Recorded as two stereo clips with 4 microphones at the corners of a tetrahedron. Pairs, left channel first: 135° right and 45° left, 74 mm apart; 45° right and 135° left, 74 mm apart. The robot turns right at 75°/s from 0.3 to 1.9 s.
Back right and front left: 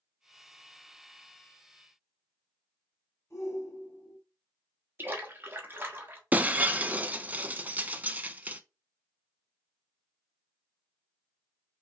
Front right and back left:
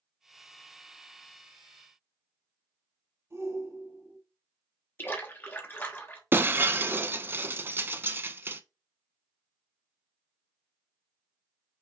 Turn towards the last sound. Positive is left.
turn(degrees=95)